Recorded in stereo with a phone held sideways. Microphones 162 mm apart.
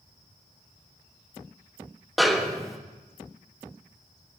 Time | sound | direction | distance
2.2 | a snare drum | centre (ahead or behind) | 1.6 m